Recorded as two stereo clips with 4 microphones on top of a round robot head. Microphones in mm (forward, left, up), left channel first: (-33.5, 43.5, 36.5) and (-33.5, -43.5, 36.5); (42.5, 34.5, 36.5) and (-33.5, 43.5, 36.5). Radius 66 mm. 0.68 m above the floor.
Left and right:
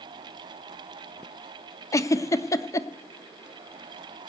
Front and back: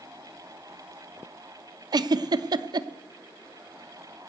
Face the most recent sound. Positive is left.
turn(degrees=145)